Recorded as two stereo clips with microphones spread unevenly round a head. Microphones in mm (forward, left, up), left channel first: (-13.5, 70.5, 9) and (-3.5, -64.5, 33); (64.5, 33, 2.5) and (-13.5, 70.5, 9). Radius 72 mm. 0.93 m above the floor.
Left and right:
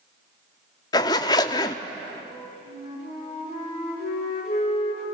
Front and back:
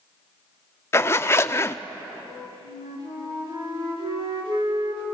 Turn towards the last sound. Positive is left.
turn(degrees=135)